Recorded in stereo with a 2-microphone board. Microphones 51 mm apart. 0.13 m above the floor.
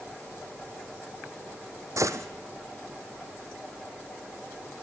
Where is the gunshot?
75° right (ahead or behind), 1.2 m.